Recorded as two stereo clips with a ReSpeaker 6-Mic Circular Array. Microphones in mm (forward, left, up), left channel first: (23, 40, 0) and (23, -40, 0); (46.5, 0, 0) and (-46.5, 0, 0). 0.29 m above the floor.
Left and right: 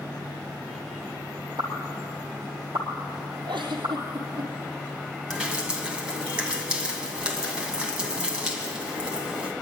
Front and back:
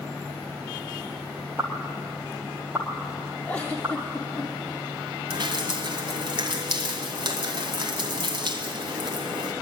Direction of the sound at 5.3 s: 165° right.